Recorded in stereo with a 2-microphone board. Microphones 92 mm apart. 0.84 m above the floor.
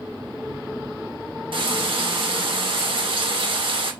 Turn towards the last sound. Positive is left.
turn(degrees=-70)  # may be behind; listen again after turning